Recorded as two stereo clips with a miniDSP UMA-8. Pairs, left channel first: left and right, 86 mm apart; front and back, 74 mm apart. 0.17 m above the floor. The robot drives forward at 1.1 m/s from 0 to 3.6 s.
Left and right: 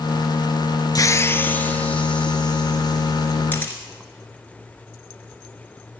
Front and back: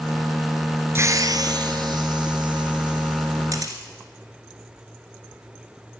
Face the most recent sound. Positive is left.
turn(degrees=155)